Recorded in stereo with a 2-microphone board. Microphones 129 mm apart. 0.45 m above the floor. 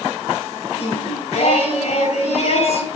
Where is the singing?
50° left (ahead or behind), 4 m.